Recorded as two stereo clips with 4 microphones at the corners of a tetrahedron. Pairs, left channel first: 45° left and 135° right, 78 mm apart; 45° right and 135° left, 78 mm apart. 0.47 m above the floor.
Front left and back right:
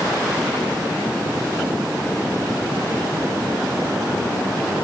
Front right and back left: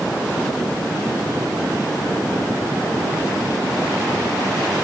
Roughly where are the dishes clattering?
No dishes clattering in this recording.